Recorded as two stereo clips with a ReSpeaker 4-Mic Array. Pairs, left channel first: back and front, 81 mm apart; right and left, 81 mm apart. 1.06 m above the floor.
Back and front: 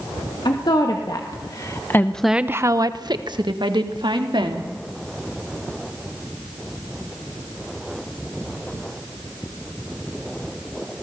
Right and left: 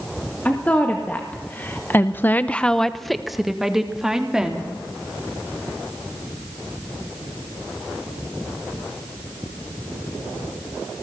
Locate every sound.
0.5 s a woman speaking: 160° right, 2.5 m; by 4.7 s 10° left, 3 m